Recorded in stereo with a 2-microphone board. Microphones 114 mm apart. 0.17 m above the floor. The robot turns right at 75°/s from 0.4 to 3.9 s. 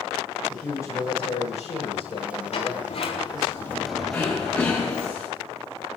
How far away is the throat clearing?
About 5 m.